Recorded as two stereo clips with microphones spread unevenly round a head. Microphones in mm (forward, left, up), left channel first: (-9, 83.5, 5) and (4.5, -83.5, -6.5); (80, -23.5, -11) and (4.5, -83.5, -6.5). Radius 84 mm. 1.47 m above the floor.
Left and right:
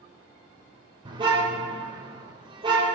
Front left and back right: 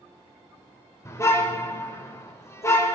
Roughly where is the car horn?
Ahead.